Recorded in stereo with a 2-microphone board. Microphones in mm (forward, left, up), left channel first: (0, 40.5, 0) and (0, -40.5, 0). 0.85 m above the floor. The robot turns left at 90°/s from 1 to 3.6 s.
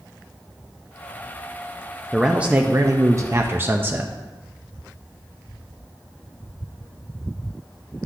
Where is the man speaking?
Straight ahead, 0.5 m; by 4.1 s 130° right, 0.5 m.